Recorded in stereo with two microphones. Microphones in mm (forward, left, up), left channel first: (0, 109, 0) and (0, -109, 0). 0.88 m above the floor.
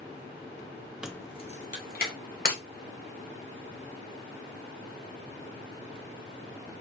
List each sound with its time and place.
1.0 s keys jangling: 5° right (ahead or behind), 0.5 m; by 2.1 s 50° left (ahead or behind), 1.3 m
2.5 s breaking glass: 40° left (ahead or behind), 1.6 m